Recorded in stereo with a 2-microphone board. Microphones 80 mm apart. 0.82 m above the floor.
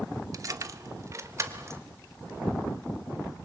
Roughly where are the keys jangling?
Right.